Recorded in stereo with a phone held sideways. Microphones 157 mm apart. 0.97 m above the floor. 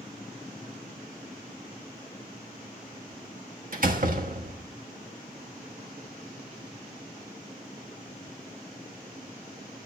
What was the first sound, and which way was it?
A door slam, 65° right (ahead or behind).